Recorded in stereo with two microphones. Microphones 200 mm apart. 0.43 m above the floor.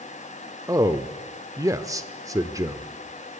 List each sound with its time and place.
0.7 s a man speaking: 15° right (ahead or behind), 0.8 m